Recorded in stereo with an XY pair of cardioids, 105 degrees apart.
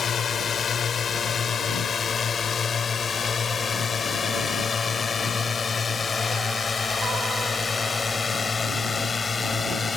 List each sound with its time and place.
0.0 s a drone: 50° left; by 10.0 s 30° left